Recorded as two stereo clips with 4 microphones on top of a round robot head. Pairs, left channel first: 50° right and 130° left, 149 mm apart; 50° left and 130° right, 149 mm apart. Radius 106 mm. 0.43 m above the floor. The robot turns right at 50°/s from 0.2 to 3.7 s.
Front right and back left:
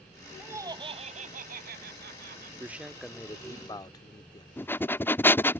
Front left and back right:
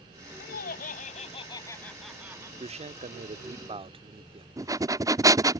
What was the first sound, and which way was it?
Laughter, 55° left.